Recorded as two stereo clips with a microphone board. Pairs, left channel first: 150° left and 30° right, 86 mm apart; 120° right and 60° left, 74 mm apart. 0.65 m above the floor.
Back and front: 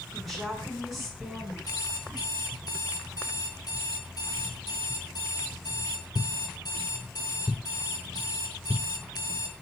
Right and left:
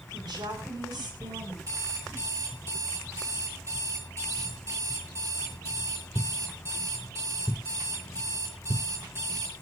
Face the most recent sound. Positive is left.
turn(degrees=110)